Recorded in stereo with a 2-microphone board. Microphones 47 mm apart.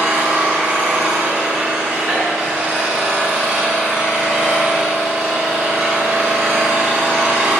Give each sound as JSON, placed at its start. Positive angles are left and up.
{"t": 0.0, "sound": "an engine running", "side_deg": -20, "distance_m": 3.0}